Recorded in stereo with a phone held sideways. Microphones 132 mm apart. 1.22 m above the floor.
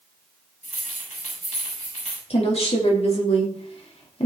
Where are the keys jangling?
70° left (ahead or behind), 5.5 m.